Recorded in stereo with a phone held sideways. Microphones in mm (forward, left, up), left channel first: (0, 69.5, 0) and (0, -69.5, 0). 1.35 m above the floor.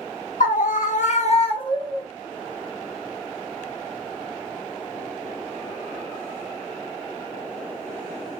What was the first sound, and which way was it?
A scream, 80° left.